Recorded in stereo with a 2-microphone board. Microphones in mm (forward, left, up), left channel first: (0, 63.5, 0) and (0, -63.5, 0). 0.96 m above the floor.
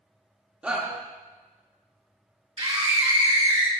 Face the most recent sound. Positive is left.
turn(degrees=-40)  # may be behind; listen again after turning